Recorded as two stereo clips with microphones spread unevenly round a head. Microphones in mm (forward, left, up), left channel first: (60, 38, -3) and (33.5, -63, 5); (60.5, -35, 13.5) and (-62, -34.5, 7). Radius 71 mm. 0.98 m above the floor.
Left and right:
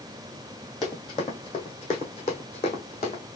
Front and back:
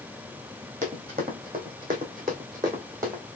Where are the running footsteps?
135° left, 2.5 m; by 3.2 s 110° left, 3 m.